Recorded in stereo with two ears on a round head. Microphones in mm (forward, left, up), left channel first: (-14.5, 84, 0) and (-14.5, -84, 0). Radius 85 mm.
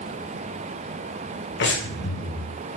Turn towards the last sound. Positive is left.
turn(degrees=70)  # may be behind; listen again after turning